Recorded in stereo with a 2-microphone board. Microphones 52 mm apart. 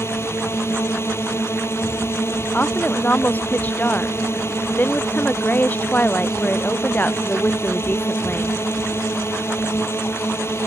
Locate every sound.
0.0 s a drone: 55° left (ahead or behind)
2.5 s a woman speaking: 35° left (ahead or behind)